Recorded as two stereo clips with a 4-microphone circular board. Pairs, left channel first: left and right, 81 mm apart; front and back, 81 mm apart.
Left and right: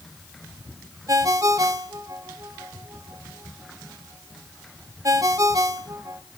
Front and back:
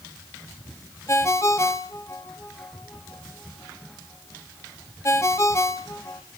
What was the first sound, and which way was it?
A ringtone, 50° right.